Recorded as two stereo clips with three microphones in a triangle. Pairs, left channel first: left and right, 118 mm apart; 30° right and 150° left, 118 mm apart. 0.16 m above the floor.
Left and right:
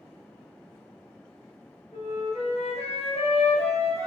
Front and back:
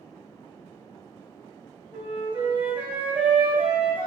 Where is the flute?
75° left, 1.1 m.